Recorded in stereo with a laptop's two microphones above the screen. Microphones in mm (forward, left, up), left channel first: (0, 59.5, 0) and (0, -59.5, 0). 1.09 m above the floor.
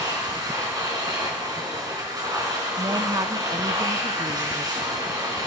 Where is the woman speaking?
35° right (ahead or behind), 0.5 m.